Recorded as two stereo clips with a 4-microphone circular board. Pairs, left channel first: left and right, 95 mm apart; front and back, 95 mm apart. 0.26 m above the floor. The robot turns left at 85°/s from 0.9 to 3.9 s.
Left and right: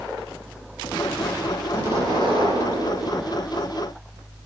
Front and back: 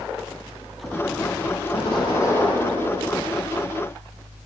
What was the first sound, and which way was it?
An explosion, 10° right.